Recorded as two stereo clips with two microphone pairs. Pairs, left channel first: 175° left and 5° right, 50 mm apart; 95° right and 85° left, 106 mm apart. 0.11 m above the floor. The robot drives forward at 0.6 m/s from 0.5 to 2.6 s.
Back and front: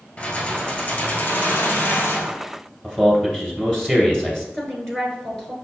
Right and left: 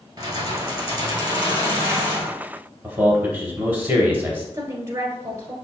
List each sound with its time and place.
0.2 s keys jangling: 125° left, 1.6 m; by 2.3 s 150° left, 2.5 m
2.8 s a man speaking: 120° left, 1.9 m
4.5 s a woman speaking: 105° left, 1.2 m